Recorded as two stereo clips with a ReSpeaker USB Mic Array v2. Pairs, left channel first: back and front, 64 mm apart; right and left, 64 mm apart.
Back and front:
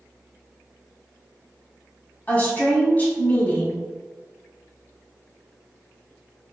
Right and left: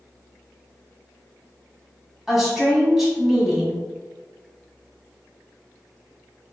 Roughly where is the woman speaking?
Behind.